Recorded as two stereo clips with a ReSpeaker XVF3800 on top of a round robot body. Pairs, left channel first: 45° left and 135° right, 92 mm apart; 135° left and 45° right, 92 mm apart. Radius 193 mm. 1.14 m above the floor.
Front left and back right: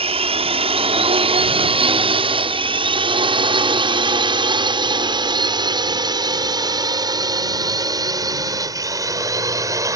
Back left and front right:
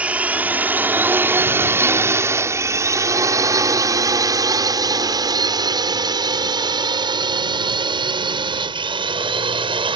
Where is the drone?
120° right; by 10.0 s 80° right.